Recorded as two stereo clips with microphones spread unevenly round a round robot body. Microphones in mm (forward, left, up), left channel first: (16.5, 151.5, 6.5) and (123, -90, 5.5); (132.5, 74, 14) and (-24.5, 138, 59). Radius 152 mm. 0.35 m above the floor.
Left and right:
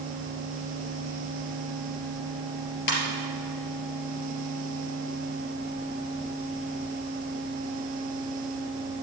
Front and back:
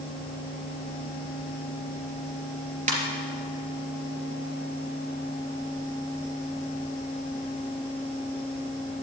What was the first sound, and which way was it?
A ringtone, 115° left.